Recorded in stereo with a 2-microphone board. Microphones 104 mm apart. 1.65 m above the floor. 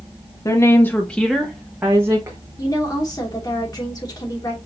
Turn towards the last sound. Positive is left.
turn(degrees=40)  # may be behind; listen again after turning